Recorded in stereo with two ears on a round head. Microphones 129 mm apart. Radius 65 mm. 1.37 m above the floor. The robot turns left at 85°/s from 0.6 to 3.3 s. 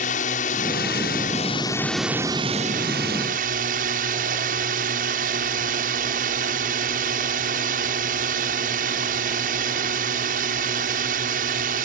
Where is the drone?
120° left; by 11.9 s 110° right.